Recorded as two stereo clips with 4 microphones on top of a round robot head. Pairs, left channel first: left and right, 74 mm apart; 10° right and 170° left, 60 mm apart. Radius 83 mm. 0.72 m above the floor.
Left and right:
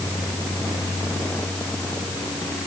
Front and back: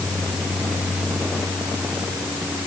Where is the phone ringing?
No phone ringing in this recording.